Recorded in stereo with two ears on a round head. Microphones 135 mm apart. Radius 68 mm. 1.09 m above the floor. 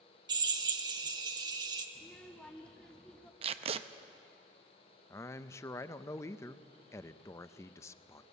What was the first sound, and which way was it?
A drill, 30° right (ahead or behind).